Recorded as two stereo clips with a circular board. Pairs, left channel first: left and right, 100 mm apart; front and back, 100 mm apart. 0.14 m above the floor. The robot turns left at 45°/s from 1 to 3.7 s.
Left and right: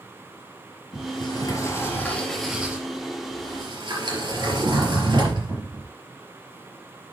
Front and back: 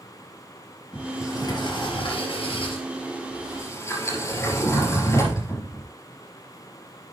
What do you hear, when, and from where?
0.9 s a sliding door: 65° left, 3.5 m; by 5.9 s 55° right, 3.5 m